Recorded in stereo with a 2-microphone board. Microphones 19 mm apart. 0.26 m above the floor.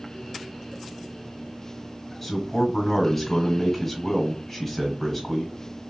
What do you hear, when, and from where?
2.2 s a man speaking: 10° left (ahead or behind), 1.5 m